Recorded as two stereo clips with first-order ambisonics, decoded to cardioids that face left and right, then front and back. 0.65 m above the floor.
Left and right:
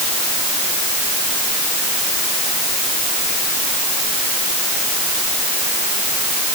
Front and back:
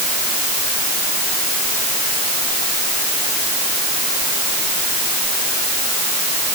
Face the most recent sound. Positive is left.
No sound to turn to.